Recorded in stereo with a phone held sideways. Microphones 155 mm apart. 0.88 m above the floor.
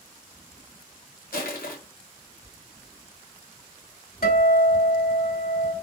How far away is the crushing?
About 1.3 m.